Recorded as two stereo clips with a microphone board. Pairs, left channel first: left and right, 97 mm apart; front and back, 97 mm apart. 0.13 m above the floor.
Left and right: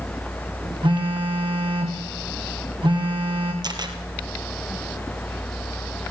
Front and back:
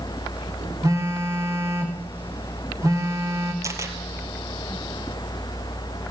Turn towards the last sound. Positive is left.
turn(degrees=-125)